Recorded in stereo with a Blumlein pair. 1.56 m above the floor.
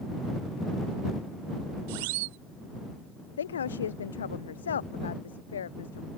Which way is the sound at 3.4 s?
65° left.